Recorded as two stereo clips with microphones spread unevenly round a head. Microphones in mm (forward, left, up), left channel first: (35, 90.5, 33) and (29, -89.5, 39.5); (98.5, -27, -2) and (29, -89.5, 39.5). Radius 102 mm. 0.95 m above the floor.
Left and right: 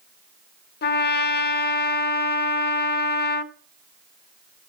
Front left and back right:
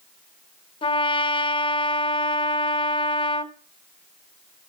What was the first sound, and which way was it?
A trumpet, 60° left.